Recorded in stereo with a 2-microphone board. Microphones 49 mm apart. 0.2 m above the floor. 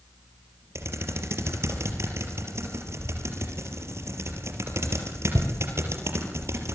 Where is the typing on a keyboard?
65° right (ahead or behind), 4.5 m.